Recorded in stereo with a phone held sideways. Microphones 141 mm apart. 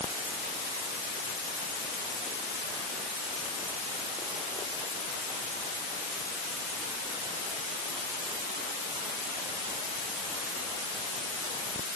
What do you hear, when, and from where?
Only background noise.